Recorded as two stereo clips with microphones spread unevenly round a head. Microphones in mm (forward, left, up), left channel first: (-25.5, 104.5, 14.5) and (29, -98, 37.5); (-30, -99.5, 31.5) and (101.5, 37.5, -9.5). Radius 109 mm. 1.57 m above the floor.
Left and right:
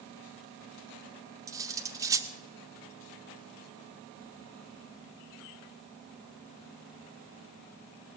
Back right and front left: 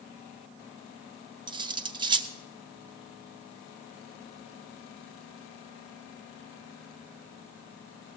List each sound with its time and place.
1.5 s cutlery clinking: 20° right, 0.8 m